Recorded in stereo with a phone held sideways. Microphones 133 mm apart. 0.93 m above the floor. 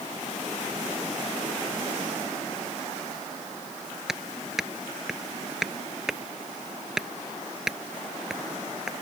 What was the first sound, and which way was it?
Hammering, 5° right (ahead or behind).